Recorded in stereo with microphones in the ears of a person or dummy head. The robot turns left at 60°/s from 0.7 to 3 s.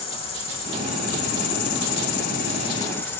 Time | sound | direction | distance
0.0 | an insect | 150° left | 2 m